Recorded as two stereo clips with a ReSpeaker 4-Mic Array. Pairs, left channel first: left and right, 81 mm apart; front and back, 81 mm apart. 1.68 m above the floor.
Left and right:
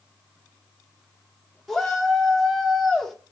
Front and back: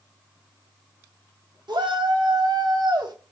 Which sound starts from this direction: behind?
A shout, at 1.7 s.